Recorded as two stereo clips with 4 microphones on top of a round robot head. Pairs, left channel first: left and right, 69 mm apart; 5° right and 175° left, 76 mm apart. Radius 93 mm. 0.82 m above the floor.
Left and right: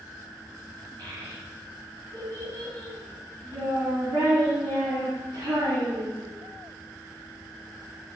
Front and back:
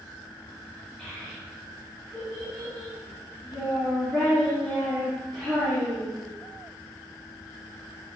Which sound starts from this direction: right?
A child speaking, at 1.0 s.